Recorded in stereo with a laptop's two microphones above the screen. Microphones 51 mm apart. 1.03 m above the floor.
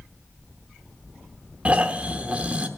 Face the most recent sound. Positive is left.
turn(degrees=-25)  # may be behind; listen again after turning